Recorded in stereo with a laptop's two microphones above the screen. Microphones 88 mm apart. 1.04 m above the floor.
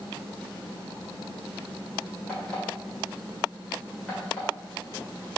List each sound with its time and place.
2.3 s an alarm clock: 10° left (ahead or behind), 2.5 m